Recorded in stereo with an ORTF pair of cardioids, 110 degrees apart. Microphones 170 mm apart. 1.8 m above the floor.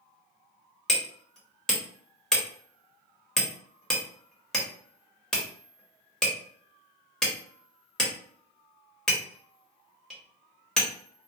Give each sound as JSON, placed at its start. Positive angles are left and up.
{"t": 0.9, "sound": "hammering", "azimuth_deg": 0, "distance_m": 1.2}